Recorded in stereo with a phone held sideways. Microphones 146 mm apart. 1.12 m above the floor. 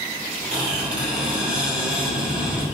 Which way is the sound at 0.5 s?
5° right (ahead or behind).